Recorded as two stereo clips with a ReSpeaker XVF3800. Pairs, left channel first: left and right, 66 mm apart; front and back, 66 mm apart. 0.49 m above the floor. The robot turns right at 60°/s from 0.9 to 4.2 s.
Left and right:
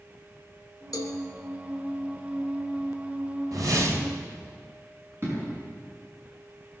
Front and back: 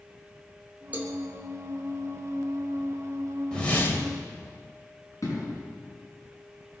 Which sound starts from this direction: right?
A whoosh, at 3.5 s.